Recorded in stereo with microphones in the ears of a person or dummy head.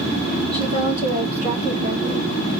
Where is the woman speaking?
30° right (ahead or behind), 2 m; by 2.3 s 50° right (ahead or behind), 1.2 m.